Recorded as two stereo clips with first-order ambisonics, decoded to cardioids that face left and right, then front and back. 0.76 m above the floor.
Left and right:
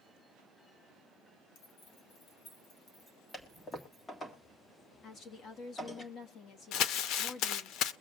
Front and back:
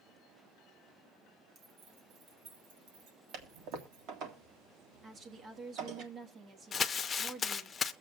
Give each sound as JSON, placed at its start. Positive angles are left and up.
{"t": 1.6, "sound": "keys jangling", "azimuth_deg": 115, "distance_m": 1.9}
{"t": 3.3, "sound": "a toilet flushing", "azimuth_deg": 165, "distance_m": 1.7}
{"t": 5.0, "sound": "a woman speaking", "azimuth_deg": 125, "distance_m": 1.2}
{"t": 6.7, "sound": "crumpling", "azimuth_deg": 65, "distance_m": 0.5}